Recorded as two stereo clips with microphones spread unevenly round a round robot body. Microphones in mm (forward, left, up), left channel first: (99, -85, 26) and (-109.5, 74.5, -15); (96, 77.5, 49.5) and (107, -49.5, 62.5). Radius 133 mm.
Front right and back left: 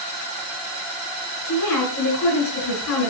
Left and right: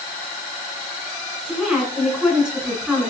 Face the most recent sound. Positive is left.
turn(degrees=0)